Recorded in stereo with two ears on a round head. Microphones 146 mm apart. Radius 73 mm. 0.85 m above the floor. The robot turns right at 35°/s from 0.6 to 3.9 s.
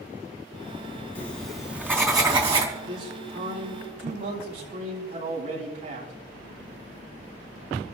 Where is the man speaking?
90° right, 7.5 m; by 6.1 s 50° right, 7.5 m.